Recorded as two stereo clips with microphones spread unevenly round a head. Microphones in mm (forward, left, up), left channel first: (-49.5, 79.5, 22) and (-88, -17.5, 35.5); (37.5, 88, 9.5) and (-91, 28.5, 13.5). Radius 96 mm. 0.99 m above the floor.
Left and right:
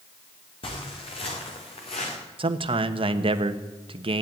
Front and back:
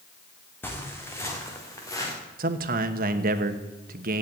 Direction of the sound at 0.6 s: 100° left.